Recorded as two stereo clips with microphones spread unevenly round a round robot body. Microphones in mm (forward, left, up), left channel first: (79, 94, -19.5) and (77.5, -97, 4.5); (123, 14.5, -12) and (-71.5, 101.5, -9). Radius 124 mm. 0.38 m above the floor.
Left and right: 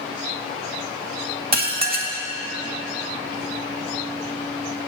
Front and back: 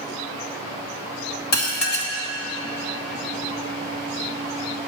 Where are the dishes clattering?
50° right, 1.8 m.